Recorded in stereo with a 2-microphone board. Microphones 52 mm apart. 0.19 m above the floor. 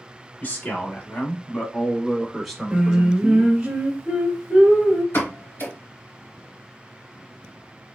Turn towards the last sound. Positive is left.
turn(degrees=50)  # may be behind; listen again after turning